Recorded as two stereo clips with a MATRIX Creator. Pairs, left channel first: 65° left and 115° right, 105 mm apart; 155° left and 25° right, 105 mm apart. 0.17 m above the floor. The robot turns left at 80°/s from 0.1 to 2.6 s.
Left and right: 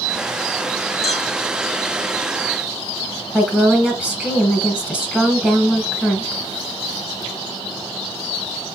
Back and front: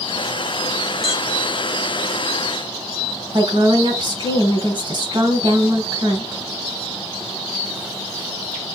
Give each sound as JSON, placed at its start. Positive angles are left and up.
{"t": 1.0, "sound": "a clink", "azimuth_deg": 70, "distance_m": 3.0}
{"t": 3.3, "sound": "a woman speaking", "azimuth_deg": -35, "distance_m": 2.0}